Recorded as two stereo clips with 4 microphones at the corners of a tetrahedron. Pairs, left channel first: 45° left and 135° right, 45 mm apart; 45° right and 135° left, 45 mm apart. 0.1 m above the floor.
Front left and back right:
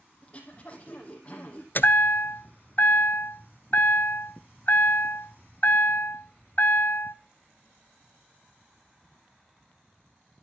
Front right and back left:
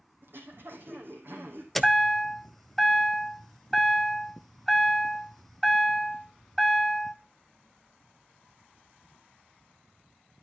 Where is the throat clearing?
105° left, 3.5 m.